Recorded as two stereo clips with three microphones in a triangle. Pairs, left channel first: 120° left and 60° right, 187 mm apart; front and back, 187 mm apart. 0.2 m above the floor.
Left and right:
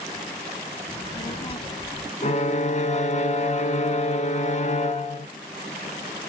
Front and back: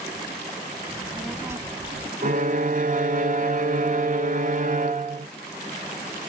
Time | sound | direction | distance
0.9 | a child speaking | 80° left | 1.0 m
2.2 | a violin | 155° left | 0.5 m